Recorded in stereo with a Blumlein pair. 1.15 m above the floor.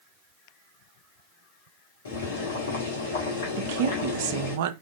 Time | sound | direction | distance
2.0 | boiling | 60° left | 1.2 m
3.6 | a woman speaking | 50° right | 0.5 m